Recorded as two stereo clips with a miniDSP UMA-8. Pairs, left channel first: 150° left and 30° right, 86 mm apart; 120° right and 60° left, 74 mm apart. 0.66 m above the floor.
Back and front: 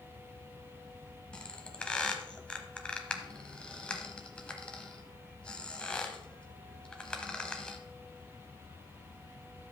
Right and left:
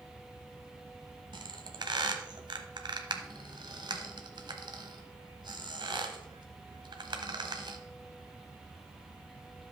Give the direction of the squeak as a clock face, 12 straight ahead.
10 o'clock.